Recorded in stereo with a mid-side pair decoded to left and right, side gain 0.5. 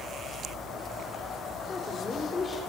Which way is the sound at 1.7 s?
30° left.